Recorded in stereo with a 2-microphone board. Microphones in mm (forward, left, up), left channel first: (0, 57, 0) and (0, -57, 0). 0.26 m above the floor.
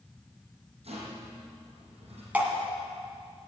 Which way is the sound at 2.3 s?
15° right (ahead or behind).